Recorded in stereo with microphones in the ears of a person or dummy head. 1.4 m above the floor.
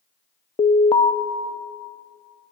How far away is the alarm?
About 0.7 m.